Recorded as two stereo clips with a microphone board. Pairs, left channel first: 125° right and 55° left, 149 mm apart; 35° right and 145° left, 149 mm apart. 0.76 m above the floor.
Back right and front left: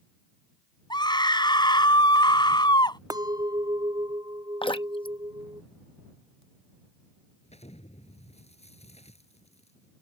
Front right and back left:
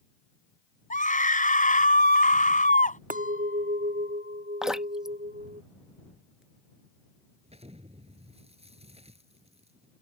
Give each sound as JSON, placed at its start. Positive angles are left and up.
{"t": 0.9, "sound": "a scream", "azimuth_deg": -65}
{"t": 3.1, "sound": "a clink", "azimuth_deg": 120}
{"t": 4.6, "sound": "dripping", "azimuth_deg": -130}
{"t": 7.4, "sound": "an explosion", "azimuth_deg": -165}